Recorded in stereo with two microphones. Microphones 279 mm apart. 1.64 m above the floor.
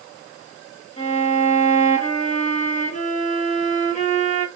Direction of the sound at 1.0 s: 25° left (ahead or behind).